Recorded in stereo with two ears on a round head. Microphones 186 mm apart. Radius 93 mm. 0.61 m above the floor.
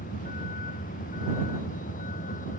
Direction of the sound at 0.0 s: 40° left (ahead or behind).